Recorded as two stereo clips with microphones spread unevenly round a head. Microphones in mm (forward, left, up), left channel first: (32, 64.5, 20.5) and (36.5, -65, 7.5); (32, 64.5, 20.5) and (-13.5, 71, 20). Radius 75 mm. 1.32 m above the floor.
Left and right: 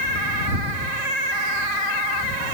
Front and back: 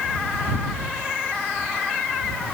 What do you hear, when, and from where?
Only background noise.